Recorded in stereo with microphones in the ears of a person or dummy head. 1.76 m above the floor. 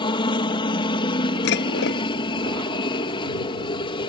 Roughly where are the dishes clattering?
Left.